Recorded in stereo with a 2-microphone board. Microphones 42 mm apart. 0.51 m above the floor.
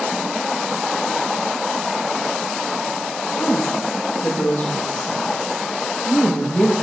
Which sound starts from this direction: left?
A woman speaking, at 3.4 s.